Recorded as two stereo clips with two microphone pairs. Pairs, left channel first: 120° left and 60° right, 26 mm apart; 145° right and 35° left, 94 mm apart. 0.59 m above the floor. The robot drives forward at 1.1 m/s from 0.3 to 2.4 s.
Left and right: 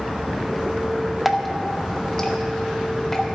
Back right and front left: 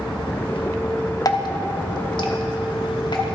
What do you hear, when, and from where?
1.2 s dripping: 140° right, 0.8 m; by 3.4 s 170° right, 1.8 m